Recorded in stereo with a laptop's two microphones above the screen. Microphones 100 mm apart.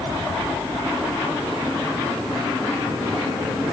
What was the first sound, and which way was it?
Only background noise.